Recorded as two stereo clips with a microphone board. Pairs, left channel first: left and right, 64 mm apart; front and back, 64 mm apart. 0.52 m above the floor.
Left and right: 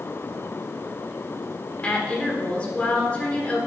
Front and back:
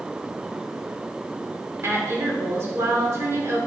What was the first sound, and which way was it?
A woman speaking, 155° left.